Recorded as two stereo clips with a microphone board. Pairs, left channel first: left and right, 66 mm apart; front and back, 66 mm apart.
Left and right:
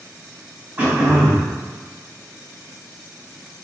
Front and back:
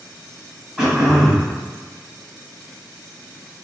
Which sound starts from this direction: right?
Throat clearing, at 0.8 s.